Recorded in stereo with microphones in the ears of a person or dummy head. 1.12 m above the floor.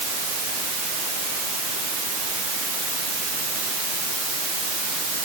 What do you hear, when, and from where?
Only background noise.